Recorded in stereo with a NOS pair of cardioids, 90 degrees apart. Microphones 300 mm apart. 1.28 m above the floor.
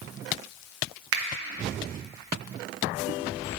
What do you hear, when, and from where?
1.1 s a finger snap: 50° right, 1.0 m